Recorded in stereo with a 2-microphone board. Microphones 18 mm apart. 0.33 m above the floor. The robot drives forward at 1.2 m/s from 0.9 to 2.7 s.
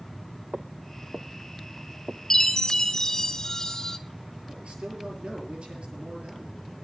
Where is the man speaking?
70° right (ahead or behind), 7 m.